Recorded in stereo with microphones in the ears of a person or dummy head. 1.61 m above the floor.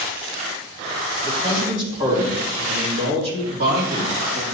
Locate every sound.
1.2 s a man speaking: 35° right (ahead or behind), 3 m; by 4.5 s 65° right (ahead or behind), 3.5 m